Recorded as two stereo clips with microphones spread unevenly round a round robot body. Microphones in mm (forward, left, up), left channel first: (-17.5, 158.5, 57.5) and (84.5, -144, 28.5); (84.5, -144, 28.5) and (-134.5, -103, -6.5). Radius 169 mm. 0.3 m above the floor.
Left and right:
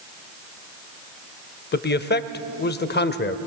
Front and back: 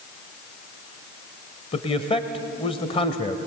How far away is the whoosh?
No whoosh in this recording.